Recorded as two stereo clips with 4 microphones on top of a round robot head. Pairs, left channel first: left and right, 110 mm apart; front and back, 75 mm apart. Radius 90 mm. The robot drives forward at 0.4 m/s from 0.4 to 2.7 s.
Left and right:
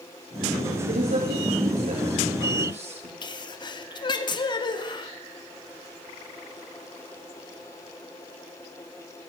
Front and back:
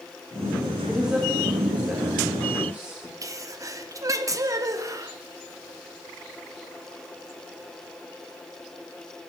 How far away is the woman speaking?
About 4 m.